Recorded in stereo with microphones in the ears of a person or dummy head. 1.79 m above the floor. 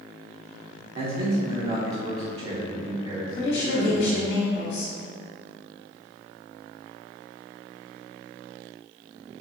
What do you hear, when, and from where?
0.9 s a man speaking: 35° right (ahead or behind), 0.8 m
3.4 s a woman speaking: 65° left (ahead or behind), 1.0 m